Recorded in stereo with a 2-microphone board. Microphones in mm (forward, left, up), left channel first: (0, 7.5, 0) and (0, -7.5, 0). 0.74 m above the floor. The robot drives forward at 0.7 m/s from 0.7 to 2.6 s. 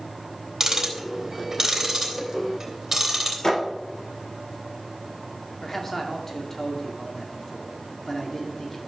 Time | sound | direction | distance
0.6 | ticking | 40° right (ahead or behind) | 2.5 m
3.4 | a thud | 40° left (ahead or behind) | 6 m
5.6 | a man speaking | 25° left (ahead or behind) | 2 m